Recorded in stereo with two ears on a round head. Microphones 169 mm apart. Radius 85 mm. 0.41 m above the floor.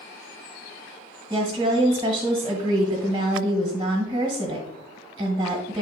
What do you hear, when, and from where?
1.3 s a woman speaking: 25° right (ahead or behind), 1.7 m